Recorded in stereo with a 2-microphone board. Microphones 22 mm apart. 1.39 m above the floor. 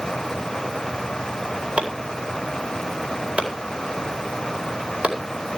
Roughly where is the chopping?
Right.